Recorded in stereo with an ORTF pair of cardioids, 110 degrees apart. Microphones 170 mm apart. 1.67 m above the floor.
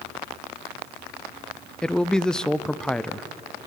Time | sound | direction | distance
1.8 | a man speaking | 5° left | 0.7 m